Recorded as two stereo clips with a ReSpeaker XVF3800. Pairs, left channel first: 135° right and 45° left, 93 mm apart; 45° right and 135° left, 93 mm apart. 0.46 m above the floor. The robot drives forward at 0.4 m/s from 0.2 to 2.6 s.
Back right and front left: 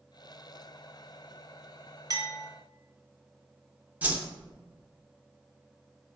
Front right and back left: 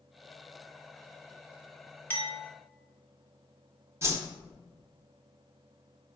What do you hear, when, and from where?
2.1 s a clink: 20° left, 0.9 m
4.0 s a whoosh: 100° left, 0.6 m